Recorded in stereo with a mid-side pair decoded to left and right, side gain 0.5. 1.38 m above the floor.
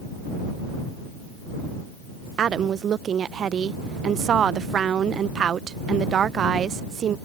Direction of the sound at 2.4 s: 50° right.